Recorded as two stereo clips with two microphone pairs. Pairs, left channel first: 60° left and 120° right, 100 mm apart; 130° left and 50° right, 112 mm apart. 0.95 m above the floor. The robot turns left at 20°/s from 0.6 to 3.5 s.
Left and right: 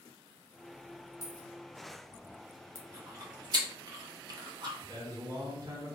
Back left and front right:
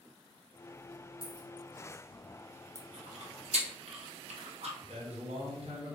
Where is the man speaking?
70° right, 1.1 m.